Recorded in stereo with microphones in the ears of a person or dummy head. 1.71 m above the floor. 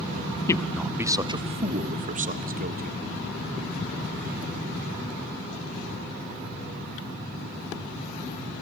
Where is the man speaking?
15° left (ahead or behind), 0.6 m; by 3.0 s 50° right (ahead or behind), 1.8 m.